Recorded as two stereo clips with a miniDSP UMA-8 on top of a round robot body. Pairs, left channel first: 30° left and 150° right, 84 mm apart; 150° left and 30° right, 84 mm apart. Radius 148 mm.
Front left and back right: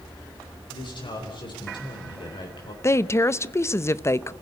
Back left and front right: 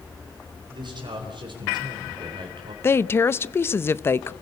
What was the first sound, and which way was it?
A man speaking, straight ahead.